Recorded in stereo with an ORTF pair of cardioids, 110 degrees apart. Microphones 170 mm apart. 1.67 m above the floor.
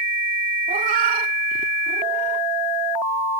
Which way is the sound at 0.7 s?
60° right.